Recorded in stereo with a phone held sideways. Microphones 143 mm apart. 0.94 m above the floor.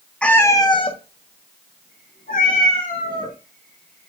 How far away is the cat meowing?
About 0.6 m.